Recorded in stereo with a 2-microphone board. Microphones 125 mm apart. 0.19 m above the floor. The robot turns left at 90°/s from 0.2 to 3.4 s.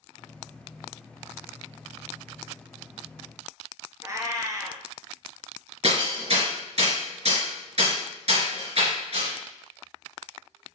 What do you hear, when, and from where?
4.0 s a cat meowing: 25° right (ahead or behind), 0.9 m
5.8 s hammering: 60° right (ahead or behind), 2.5 m